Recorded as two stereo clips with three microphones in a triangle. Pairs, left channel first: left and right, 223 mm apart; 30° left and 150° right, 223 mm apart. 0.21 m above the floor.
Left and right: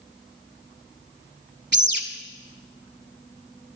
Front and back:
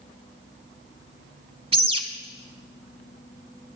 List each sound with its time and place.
1.7 s a bird: 90° right, 0.9 m